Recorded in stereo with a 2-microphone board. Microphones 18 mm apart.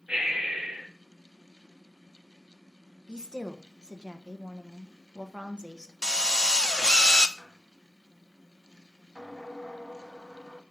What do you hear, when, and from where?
0.1 s breathing: 85° right, 5.5 m
3.1 s a woman speaking: 55° right (ahead or behind), 1.2 m
6.0 s a drill: 45° left (ahead or behind), 0.6 m
7.4 s a squeak: 60° left (ahead or behind), 1.8 m